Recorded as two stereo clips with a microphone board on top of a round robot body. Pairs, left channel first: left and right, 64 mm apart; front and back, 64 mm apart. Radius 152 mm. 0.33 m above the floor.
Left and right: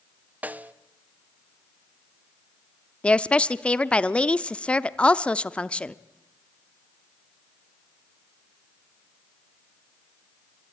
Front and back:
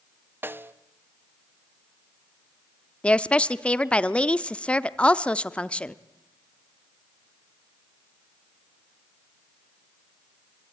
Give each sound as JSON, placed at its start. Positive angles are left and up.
{"t": 0.4, "sound": "a snare drum", "azimuth_deg": -145, "distance_m": 1.0}
{"t": 3.0, "sound": "a woman speaking", "azimuth_deg": 45, "distance_m": 0.9}